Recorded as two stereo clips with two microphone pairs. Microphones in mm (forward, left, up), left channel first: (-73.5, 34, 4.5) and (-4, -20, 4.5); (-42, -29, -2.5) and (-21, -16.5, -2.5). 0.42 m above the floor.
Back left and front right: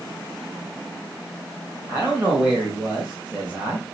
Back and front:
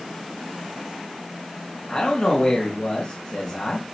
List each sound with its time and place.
1.9 s a man speaking: 110° right, 2.5 m